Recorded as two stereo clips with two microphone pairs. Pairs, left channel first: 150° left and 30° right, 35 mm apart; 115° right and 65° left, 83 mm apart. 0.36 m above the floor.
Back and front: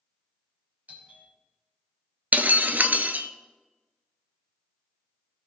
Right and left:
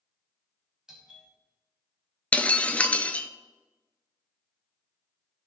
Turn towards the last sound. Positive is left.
turn(degrees=-45)